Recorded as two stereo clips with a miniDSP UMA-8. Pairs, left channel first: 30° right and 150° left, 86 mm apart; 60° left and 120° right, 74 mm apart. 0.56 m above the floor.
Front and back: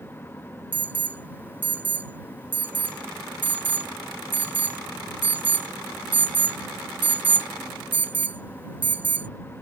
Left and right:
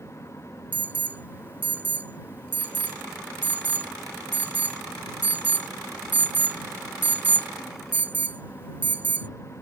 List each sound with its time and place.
0.7 s an alarm: 160° right